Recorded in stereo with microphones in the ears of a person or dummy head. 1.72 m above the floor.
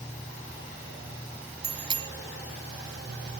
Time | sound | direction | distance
1.6 | a bicycle bell | 25° right (ahead or behind) | ?